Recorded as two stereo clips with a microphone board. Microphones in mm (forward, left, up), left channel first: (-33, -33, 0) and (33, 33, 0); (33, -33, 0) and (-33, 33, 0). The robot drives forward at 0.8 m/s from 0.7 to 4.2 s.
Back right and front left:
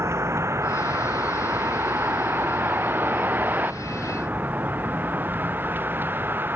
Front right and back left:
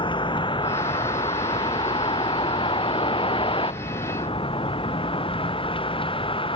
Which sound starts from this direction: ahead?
A vehicle, at 0.0 s.